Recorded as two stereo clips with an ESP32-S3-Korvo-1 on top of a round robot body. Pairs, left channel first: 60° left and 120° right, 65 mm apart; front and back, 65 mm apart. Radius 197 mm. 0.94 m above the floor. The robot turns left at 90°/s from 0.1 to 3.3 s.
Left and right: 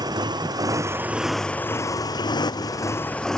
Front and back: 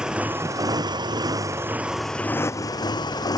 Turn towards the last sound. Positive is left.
turn(degrees=-25)